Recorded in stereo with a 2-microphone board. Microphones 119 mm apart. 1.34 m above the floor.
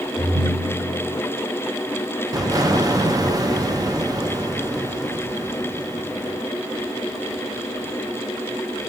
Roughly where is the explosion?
Right.